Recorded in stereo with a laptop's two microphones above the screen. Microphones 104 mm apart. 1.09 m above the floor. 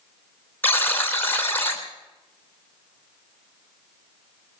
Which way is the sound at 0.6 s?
20° left (ahead or behind).